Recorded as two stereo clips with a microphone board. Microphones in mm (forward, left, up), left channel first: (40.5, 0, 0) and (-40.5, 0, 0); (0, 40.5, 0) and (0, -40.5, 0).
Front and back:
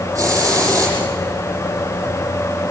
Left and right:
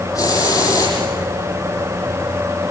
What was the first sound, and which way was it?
A hiss, 130° left.